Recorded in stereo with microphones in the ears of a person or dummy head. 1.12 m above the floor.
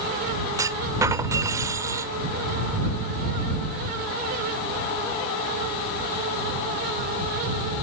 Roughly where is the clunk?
Centre.